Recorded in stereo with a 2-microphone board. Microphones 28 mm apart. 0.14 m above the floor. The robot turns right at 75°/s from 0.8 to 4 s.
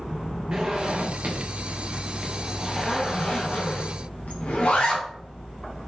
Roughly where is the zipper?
Right.